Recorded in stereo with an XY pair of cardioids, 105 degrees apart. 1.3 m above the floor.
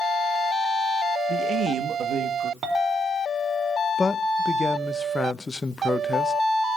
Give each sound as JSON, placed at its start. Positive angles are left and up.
{"t": 1.3, "sound": "a man speaking", "azimuth_deg": -55, "distance_m": 1.2}
{"t": 2.6, "sound": "a clink", "azimuth_deg": -60, "distance_m": 3.5}
{"t": 4.0, "sound": "a man speaking", "azimuth_deg": 25, "distance_m": 0.8}